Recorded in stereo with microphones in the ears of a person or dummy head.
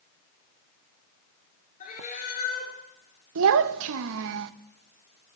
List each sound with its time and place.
1.8 s a cat meowing: 45° left (ahead or behind), 4.5 m
3.4 s a child speaking: 75° right (ahead or behind), 0.7 m